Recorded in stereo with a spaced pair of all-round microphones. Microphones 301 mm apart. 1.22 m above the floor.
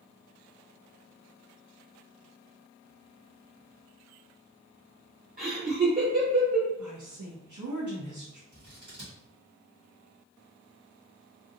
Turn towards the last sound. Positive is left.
turn(degrees=-75)  # may be behind; listen again after turning